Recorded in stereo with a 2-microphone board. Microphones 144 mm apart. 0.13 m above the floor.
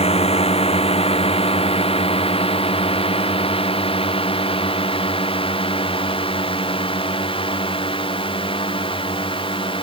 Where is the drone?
45° left (ahead or behind); by 9.8 s 35° left (ahead or behind).